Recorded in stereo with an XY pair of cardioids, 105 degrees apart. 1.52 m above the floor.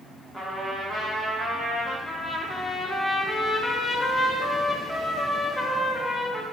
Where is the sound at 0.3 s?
25° right, 1.1 m.